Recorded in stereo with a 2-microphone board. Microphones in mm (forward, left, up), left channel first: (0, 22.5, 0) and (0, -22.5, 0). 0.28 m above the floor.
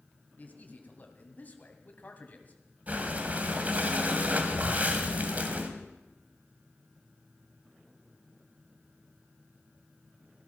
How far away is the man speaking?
About 2 m.